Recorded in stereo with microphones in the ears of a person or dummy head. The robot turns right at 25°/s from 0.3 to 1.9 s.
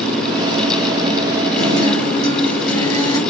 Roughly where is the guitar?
Left.